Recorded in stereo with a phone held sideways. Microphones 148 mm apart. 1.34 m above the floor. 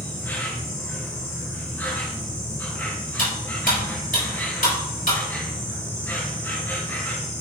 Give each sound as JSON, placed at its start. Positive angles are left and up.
{"t": 0.0, "sound": "an insect", "side_deg": 15, "distance_m": 1.8}
{"t": 3.2, "sound": "cutlery clinking", "side_deg": 70, "distance_m": 3.0}